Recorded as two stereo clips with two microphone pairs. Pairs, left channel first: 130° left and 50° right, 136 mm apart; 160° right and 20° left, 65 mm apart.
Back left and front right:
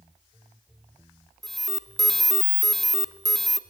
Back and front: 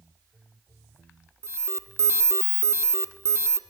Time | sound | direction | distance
1.4 | an alarm | 45° left | 1.2 m